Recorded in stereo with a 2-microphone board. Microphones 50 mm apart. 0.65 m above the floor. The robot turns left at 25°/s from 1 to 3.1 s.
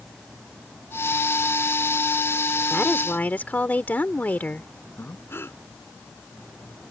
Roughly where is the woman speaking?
Left.